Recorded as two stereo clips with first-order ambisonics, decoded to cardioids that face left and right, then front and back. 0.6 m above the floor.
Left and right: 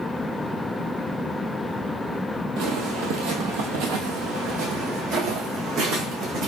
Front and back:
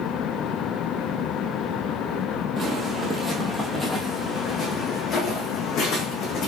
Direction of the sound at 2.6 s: 115° right.